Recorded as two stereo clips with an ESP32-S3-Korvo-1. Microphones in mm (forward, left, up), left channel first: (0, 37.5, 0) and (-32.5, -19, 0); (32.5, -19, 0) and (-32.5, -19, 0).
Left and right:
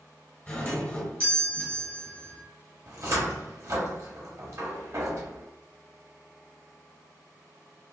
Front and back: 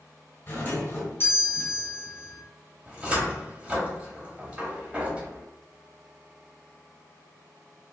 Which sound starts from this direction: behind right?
A cupboard door, at 2.9 s.